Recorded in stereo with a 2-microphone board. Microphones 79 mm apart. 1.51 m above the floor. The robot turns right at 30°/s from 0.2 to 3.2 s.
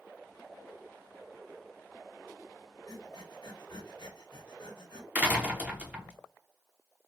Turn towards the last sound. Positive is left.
turn(degrees=-20)  # may be behind; listen again after turning